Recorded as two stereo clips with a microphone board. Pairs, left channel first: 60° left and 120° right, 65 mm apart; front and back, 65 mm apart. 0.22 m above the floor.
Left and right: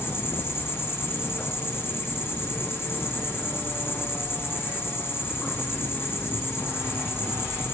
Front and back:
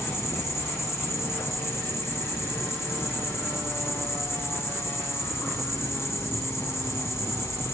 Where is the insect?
25° left, 2 m.